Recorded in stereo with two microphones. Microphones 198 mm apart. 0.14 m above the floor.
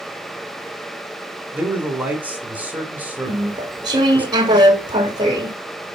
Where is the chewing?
20° right (ahead or behind), 1.2 m.